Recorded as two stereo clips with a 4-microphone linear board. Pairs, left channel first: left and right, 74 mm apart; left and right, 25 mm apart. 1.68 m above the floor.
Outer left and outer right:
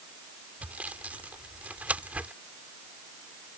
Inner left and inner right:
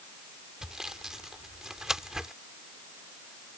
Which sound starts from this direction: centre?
Sawing, at 0.6 s.